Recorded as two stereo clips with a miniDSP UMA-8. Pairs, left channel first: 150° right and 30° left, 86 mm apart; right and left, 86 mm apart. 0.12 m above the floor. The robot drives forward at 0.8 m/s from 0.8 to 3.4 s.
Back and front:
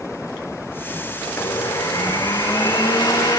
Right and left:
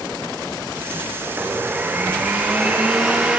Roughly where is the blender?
Behind left.